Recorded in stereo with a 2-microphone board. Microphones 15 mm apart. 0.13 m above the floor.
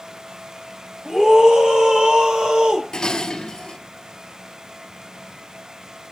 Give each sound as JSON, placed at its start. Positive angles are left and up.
{"t": 1.1, "sound": "a scream", "side_deg": -60, "distance_m": 8.0}
{"t": 2.9, "sound": "dishes clattering", "side_deg": 45, "distance_m": 1.6}